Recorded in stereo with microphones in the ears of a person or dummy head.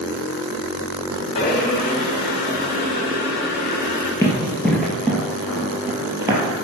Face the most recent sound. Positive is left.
turn(degrees=-20)  # may be behind; listen again after turning